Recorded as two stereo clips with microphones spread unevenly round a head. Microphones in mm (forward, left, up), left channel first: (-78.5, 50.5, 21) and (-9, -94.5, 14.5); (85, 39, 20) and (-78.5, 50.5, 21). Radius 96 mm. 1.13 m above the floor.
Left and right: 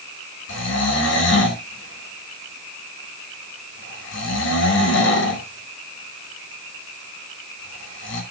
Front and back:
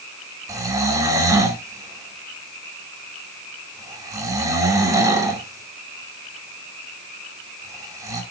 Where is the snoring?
105° left, 2.5 m.